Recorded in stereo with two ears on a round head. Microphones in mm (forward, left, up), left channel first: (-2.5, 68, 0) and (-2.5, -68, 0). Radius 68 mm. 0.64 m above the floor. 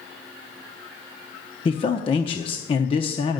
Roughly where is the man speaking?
Left.